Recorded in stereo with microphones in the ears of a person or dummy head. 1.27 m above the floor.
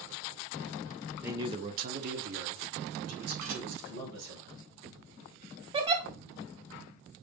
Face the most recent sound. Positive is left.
turn(degrees=-30)  # may be behind; listen again after turning